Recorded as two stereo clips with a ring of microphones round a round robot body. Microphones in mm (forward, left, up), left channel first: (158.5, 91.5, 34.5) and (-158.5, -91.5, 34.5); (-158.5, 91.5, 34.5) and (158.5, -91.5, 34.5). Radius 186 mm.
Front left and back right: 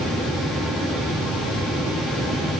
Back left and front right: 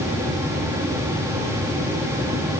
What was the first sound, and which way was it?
Only background noise.